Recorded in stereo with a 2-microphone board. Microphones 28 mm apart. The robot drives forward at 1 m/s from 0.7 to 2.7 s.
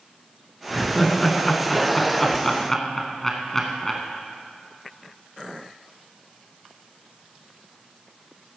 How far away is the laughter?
About 1.9 m.